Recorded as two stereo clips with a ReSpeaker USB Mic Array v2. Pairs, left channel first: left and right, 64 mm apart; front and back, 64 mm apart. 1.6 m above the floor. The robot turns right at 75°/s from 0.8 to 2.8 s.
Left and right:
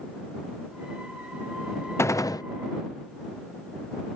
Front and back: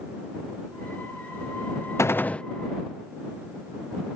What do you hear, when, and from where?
2.0 s a gunshot: 40° left; by 2.4 s 75° left